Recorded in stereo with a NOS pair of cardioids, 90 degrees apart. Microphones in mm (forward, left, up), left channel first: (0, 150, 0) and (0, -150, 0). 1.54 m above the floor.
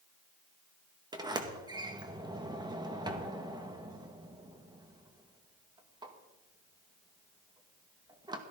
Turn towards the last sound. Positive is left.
turn(degrees=-15)